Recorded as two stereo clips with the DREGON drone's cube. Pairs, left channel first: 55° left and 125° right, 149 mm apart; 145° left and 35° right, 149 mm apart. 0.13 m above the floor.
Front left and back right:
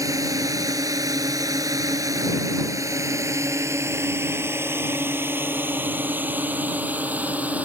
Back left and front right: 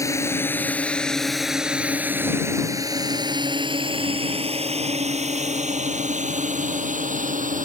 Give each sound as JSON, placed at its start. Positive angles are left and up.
{"t": 0.0, "sound": "a drone", "azimuth_deg": -170}